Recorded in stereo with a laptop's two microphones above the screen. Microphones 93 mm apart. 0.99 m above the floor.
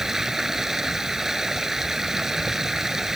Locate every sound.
0.0 s running water: 5° right (ahead or behind)